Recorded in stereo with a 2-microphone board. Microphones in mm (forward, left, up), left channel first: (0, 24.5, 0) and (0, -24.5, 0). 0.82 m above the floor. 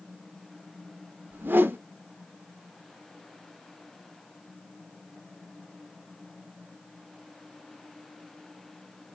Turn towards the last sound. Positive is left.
turn(degrees=-40)  # may be behind; listen again after turning